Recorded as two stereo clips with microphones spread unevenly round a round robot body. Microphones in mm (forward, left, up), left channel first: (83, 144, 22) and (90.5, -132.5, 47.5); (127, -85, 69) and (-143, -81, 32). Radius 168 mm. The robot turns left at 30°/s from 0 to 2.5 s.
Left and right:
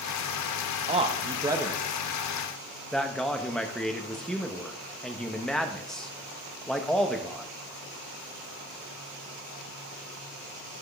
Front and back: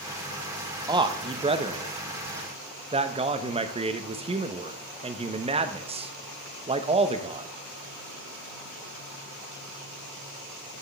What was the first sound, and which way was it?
A man speaking, 145° right.